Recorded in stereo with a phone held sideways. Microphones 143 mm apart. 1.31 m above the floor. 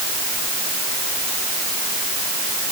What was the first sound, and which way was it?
Only background noise.